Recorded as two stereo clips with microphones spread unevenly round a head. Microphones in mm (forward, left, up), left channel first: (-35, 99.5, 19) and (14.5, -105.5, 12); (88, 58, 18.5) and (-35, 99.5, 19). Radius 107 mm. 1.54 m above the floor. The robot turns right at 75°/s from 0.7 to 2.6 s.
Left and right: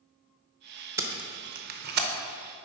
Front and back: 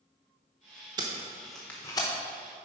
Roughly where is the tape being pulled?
Behind right.